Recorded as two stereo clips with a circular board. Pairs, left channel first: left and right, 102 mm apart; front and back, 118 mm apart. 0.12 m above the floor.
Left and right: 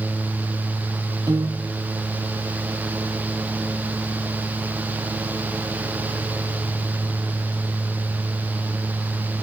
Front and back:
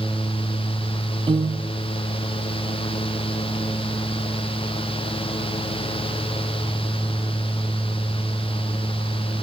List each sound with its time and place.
1.3 s a piano: 140° right, 1.4 m